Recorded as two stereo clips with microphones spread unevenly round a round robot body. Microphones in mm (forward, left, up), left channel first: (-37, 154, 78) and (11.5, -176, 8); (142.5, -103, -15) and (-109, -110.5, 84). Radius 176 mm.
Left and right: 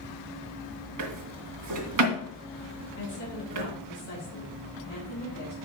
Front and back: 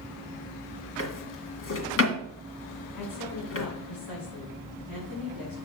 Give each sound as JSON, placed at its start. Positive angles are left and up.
{"t": 1.0, "sound": "a drawer", "azimuth_deg": -40, "distance_m": 2.0}
{"t": 3.0, "sound": "a woman speaking", "azimuth_deg": 40, "distance_m": 4.5}